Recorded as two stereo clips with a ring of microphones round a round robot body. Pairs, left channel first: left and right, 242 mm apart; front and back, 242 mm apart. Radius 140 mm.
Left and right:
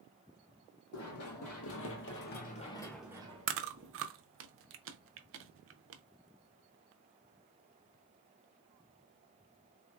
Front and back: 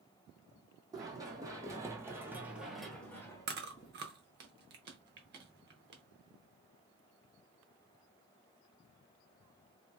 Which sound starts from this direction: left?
Running footsteps, at 0.9 s.